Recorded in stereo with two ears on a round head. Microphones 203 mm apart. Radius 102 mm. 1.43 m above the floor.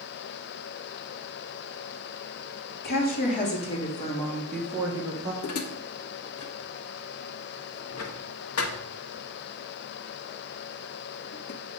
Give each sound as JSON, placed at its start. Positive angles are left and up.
{"t": 2.8, "sound": "a woman speaking", "side_deg": 50, "distance_m": 3.0}
{"t": 5.4, "sound": "dishes clattering", "side_deg": 70, "distance_m": 1.2}